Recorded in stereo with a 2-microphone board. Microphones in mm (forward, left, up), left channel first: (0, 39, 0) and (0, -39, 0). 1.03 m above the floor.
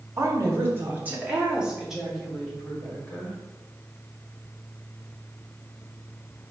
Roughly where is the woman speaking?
Right.